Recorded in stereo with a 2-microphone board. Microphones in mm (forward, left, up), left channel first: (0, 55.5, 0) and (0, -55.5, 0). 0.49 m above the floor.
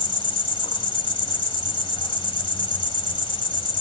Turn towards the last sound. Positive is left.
turn(degrees=50)  # may be behind; listen again after turning